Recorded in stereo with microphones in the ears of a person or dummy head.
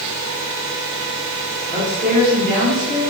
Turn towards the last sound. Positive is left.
turn(degrees=-25)  # may be behind; listen again after turning